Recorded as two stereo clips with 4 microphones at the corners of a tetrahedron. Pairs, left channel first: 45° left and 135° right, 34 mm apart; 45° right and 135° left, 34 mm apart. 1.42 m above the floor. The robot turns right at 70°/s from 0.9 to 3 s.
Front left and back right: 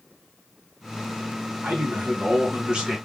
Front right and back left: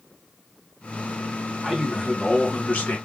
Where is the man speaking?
150° right, 1.5 m; by 3.0 s 60° right, 1.5 m.